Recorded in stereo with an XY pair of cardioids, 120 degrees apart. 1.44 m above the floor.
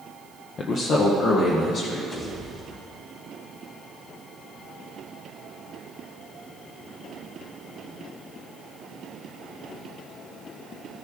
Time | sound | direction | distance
0.6 | a man speaking | 40° left | 0.7 m
2.1 | a pop | 30° left | 3 m